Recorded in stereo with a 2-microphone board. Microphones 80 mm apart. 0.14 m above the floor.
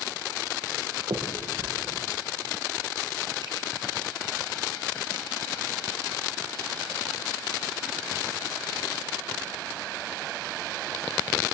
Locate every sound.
1.1 s a finger snap: 75° right (ahead or behind), 7.5 m